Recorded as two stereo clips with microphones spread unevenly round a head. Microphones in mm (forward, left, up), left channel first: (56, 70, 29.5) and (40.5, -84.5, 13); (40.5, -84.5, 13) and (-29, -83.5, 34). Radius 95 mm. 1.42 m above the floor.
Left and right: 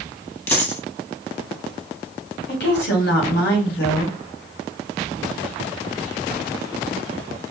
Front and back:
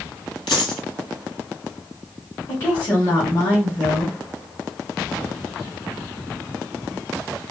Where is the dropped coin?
25° left, 1.9 m.